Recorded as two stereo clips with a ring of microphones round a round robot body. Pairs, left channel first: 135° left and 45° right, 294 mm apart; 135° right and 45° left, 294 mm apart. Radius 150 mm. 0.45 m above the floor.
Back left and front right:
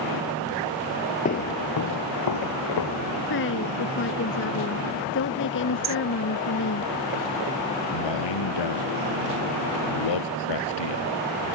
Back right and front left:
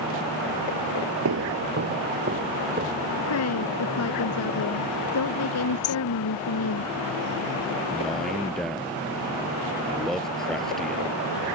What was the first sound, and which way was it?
Footsteps, 75° left.